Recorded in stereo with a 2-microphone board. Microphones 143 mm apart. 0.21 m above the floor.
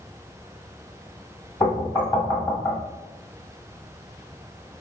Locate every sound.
1.6 s knocking: 25° left (ahead or behind), 1.2 m